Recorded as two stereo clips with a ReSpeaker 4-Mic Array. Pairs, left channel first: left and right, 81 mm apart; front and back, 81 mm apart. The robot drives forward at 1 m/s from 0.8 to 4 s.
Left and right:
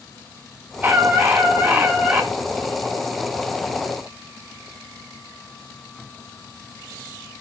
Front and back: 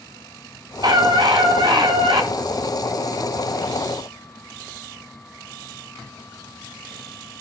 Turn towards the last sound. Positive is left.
turn(degrees=-170)